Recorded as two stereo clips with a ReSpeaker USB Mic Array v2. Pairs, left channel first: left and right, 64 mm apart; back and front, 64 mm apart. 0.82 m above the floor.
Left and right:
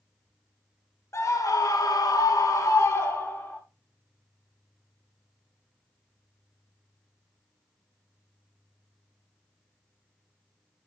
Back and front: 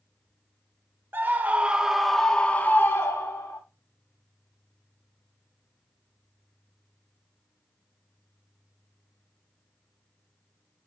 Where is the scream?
55° left, 1.7 m; by 3.6 s 150° left, 1.9 m.